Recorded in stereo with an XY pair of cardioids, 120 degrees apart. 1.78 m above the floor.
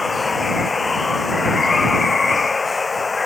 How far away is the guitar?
No guitar in this recording.